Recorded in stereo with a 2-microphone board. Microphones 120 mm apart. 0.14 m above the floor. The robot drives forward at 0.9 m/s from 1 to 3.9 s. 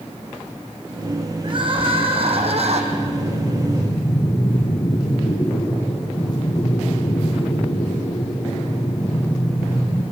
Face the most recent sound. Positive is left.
turn(degrees=50)  # may be behind; listen again after turning